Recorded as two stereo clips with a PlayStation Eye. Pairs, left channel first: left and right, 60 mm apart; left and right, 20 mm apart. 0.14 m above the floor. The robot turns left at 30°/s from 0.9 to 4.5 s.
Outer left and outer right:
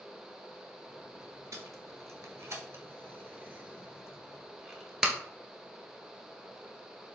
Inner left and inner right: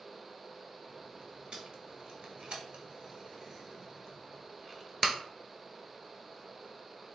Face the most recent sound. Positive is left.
turn(degrees=-10)  # may be behind; listen again after turning